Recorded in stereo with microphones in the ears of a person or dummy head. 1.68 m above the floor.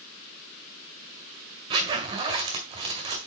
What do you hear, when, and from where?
1.7 s a zipper: 35° right (ahead or behind), 1.8 m